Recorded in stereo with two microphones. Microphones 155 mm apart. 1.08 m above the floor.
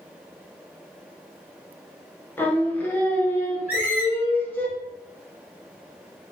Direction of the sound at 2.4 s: 10° left (ahead or behind).